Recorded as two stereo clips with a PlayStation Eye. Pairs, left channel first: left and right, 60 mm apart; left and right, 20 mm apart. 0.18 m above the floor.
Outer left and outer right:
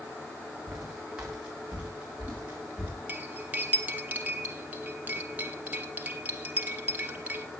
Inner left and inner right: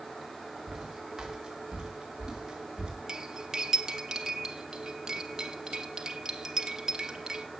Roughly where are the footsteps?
Centre.